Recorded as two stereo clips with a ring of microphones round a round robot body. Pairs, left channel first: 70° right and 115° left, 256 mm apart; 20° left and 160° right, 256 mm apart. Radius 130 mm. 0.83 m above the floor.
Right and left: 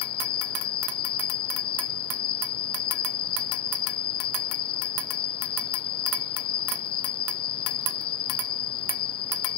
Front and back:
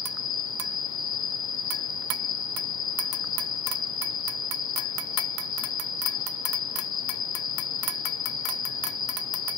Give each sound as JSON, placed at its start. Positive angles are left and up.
{"t": 0.0, "sound": "an insect", "azimuth_deg": -35}